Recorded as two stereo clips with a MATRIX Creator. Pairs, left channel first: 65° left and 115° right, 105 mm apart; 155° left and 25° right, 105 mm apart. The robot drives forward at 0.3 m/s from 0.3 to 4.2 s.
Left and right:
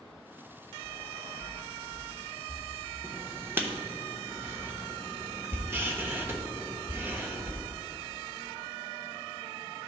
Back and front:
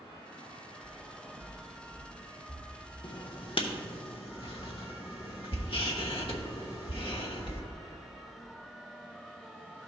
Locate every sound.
0.8 s footsteps: 70° right, 1.5 m; by 2.6 s 95° right, 2.5 m
3.0 s writing: 175° right, 0.7 m; by 7.6 s straight behind, 1.0 m